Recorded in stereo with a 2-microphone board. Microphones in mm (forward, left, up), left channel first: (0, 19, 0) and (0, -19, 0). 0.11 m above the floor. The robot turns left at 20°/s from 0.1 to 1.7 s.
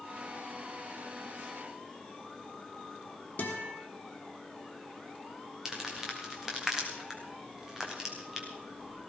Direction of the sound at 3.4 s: 45° left (ahead or behind).